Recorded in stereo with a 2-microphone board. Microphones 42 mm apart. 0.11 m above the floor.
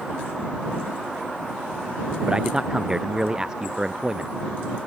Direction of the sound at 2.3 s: 20° right (ahead or behind).